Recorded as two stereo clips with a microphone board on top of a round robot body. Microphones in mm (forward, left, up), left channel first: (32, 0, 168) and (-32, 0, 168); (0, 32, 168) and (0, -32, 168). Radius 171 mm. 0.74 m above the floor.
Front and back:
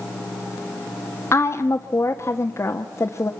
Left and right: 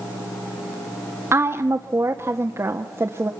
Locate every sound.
1.3 s a woman speaking: 45° right, 1.5 m